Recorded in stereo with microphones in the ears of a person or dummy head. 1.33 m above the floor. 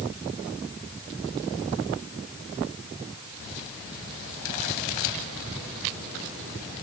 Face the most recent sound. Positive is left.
No sound to turn to.